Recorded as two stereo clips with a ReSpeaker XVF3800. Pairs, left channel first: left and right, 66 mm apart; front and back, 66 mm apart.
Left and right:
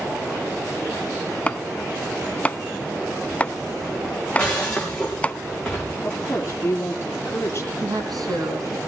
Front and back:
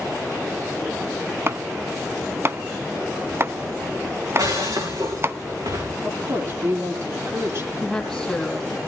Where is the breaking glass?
170° left, 9 m.